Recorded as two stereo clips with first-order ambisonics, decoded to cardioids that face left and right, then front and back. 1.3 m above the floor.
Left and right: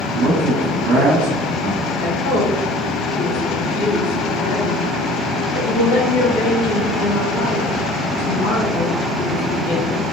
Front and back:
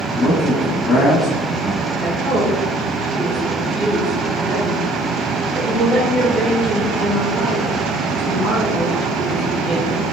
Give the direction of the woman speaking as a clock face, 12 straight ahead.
9 o'clock.